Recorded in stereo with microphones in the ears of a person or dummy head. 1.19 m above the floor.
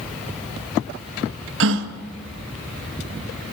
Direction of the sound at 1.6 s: 70° right (ahead or behind).